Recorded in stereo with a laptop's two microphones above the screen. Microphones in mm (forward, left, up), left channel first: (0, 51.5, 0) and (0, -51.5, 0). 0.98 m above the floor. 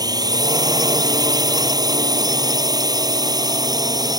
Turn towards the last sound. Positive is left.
turn(degrees=-40)  # may be behind; listen again after turning